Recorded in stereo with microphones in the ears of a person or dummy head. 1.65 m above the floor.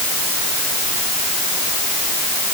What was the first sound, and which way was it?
Only background noise.